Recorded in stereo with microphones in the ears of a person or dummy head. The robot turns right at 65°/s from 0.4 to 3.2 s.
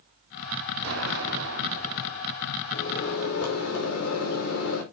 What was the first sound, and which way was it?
An explosion, 115° right.